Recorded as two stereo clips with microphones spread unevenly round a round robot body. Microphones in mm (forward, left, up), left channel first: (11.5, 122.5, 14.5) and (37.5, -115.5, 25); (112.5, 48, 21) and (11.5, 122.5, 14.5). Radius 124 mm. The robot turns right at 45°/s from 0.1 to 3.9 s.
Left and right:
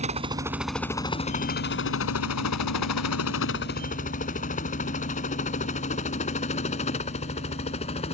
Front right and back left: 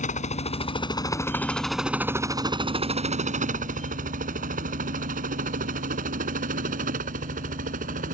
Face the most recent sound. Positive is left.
turn(degrees=160)